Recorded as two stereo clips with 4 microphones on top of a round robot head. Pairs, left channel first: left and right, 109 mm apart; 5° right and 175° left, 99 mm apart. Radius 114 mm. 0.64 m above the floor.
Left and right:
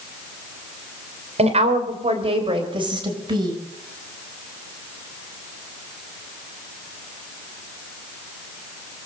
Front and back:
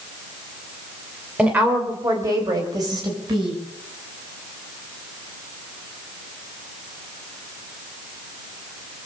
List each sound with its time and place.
1.4 s a woman speaking: 105° right, 3 m; by 3.6 s 140° right, 4.5 m